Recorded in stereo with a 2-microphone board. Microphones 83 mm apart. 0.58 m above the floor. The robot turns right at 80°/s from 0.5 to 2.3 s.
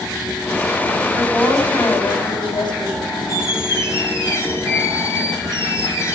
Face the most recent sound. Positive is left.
turn(degrees=35)  # may be behind; listen again after turning